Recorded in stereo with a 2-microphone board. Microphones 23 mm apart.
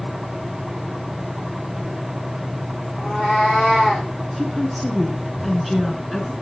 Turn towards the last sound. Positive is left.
turn(degrees=0)  # may be behind; listen again after turning